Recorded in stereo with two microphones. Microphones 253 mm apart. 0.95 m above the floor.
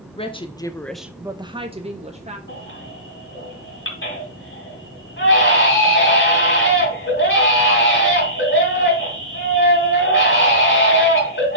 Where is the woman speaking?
20° left (ahead or behind), 0.9 m; by 2.4 s 25° right (ahead or behind), 1.4 m.